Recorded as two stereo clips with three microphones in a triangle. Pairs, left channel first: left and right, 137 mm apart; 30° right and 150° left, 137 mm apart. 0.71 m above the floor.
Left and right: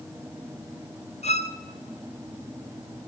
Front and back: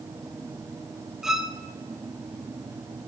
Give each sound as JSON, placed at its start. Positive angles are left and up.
{"t": 1.2, "sound": "a violin", "azimuth_deg": 65, "distance_m": 0.7}